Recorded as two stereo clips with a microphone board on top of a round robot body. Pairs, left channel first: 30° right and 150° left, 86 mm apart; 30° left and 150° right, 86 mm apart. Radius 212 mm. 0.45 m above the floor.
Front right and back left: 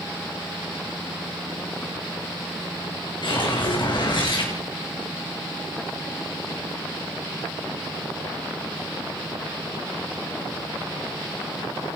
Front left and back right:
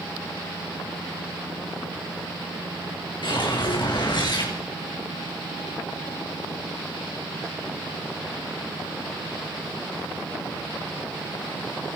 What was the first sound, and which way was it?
A whoosh, straight ahead.